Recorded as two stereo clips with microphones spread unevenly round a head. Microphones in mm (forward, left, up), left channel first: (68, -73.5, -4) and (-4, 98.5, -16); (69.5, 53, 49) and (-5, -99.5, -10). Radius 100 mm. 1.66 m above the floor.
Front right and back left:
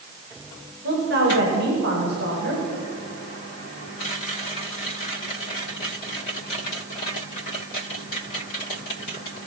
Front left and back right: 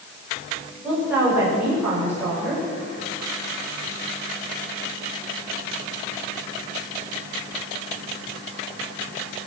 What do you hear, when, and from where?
0.8 s a woman speaking: 160° left, 6.5 m